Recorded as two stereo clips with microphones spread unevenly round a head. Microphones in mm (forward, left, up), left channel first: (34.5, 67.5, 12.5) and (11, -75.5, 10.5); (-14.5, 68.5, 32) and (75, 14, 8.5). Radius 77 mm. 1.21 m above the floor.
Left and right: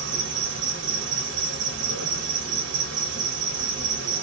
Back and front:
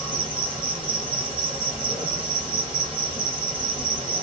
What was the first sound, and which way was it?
An insect, 115° right.